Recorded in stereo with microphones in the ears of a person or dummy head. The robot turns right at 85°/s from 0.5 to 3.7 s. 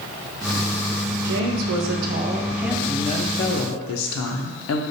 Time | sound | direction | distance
1.2 | a woman speaking | 130° right | 0.7 m